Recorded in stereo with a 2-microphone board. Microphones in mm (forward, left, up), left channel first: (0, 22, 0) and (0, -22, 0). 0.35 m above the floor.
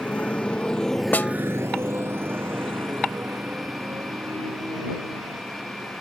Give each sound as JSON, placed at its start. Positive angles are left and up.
{"t": 0.0, "sound": "a motorcycle", "side_deg": 35}
{"t": 1.1, "sound": "a snare drum", "side_deg": 40}